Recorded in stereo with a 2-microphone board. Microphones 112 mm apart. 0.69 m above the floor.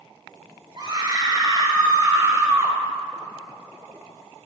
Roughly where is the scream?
Right.